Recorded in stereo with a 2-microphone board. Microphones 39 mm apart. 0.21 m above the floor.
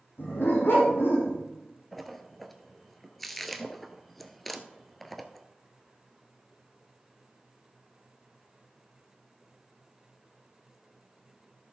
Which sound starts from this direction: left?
A dog barking, at 0.2 s.